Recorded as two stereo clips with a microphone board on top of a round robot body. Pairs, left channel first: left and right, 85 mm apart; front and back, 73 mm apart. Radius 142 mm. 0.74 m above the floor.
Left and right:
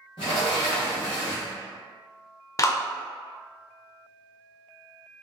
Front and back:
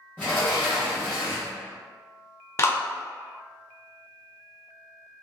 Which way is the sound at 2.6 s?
45° left.